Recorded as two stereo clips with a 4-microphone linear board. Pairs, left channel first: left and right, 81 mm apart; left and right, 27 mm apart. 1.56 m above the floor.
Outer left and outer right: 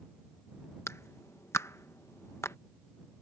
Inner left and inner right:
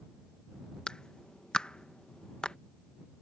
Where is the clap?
35° left (ahead or behind).